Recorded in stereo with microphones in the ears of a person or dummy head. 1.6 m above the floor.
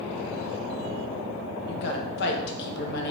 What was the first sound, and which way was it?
A woman speaking, 60° left (ahead or behind).